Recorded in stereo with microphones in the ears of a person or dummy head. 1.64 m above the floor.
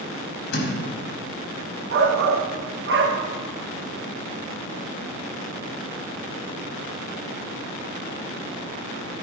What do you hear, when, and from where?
0.5 s a thud: 60° left (ahead or behind), 4 m
1.9 s a shout: 70° right (ahead or behind), 1.7 m